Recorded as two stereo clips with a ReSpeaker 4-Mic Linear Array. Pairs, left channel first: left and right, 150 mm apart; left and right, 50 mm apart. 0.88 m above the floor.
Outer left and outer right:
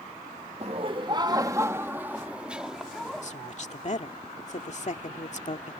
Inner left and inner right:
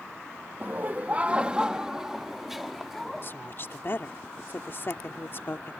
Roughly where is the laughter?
Right.